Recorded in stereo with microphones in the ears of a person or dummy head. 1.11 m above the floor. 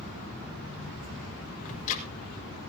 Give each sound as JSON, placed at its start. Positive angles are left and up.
{"t": 1.6, "sound": "ticking", "side_deg": 45, "distance_m": 4.5}